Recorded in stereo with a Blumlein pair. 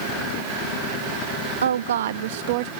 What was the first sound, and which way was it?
A woman speaking, 65° right.